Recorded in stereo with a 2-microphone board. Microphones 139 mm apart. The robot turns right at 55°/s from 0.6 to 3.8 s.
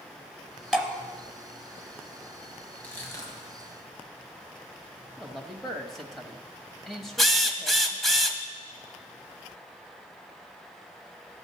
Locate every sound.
0.7 s dripping: 5° right (ahead or behind), 1.2 m; by 0.9 s 10° right (ahead or behind), 1.2 m
2.8 s crushing: 10° left (ahead or behind), 1.9 m; by 3.7 s 35° left (ahead or behind), 1.9 m
5.2 s a man speaking: centre (ahead or behind), 0.9 m
7.2 s a drill: centre (ahead or behind), 0.8 m